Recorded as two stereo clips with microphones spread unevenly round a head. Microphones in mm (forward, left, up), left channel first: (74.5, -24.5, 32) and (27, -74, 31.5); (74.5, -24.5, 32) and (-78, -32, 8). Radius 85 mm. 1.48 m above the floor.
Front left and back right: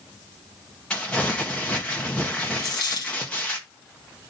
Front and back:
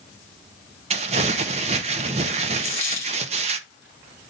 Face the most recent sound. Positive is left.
turn(degrees=75)